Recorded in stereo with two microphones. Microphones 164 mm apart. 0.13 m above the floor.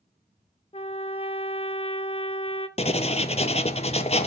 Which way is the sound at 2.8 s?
40° left (ahead or behind).